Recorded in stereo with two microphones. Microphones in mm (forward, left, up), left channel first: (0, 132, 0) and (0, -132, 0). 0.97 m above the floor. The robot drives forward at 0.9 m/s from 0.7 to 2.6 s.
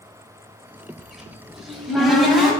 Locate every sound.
1.0 s a cupboard door: centre (ahead or behind), 1.3 m